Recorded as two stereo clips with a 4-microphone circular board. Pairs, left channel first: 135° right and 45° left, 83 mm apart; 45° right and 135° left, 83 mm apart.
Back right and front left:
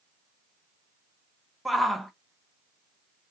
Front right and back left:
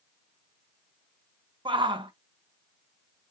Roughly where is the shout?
Behind left.